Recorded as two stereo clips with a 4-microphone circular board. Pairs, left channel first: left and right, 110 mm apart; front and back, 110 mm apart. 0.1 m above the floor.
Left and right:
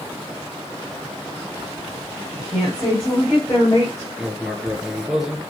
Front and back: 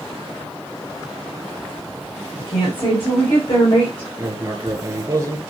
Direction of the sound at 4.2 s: 170° right.